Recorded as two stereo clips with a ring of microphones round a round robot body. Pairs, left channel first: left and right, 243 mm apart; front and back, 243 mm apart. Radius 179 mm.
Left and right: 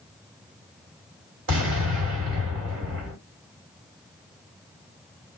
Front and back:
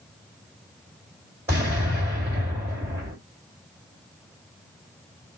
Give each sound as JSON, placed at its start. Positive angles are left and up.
{"t": 1.5, "sound": "an explosion", "azimuth_deg": -100, "distance_m": 2.0}